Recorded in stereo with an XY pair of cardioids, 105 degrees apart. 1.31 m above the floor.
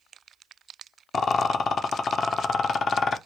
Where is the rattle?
50° left, 0.8 m.